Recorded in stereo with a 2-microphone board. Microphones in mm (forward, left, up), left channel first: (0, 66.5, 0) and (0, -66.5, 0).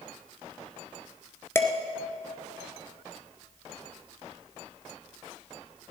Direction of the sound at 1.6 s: 20° left (ahead or behind).